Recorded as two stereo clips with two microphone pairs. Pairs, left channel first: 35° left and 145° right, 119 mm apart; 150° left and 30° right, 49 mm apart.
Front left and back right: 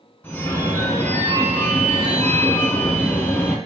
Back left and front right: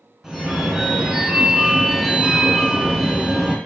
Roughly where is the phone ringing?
Ahead left.